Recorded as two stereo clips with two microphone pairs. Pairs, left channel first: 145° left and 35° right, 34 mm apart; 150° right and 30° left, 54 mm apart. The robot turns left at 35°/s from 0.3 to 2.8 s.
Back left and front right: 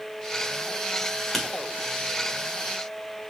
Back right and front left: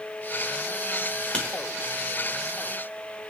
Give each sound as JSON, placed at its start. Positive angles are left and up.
{"t": 1.3, "sound": "writing", "azimuth_deg": -125, "distance_m": 1.0}